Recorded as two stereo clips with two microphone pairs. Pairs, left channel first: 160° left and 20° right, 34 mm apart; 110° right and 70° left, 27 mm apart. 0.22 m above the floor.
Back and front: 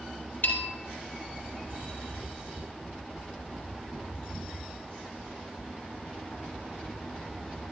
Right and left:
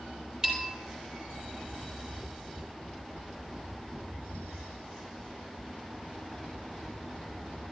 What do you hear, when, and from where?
0.4 s a bell: 135° left, 3.5 m